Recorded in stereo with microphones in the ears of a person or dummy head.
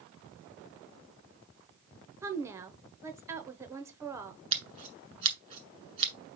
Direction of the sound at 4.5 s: 20° right (ahead or behind).